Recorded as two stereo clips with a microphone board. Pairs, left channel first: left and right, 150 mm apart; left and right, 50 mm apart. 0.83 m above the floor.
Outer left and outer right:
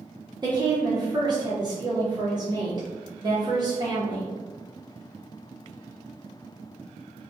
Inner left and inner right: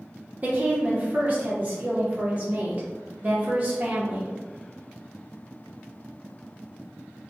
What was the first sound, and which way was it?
A woman speaking, 30° right (ahead or behind).